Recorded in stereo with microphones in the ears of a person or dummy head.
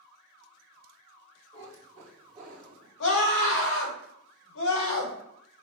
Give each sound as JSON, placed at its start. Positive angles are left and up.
{"t": 1.5, "sound": "a cat meowing", "side_deg": 20, "distance_m": 1.3}
{"t": 3.0, "sound": "a scream", "side_deg": 70, "distance_m": 2.0}